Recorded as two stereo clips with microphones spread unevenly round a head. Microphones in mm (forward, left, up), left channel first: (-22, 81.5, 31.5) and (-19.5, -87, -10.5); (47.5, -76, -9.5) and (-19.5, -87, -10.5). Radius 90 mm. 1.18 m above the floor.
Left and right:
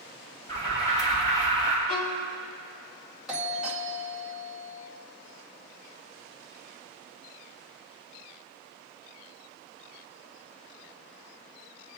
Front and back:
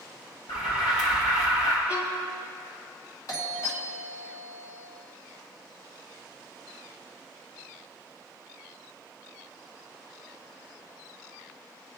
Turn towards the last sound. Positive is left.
turn(degrees=-10)